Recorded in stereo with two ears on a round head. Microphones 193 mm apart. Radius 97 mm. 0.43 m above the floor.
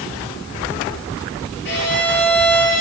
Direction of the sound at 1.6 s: 55° left (ahead or behind).